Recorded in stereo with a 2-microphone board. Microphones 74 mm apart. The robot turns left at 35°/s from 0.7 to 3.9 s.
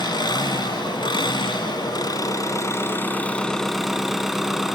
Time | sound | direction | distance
0.0 | an engine running | 110° left | 1.5 m